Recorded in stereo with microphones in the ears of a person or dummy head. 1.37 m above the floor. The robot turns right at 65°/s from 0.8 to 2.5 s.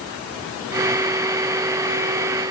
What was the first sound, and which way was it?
Only background noise.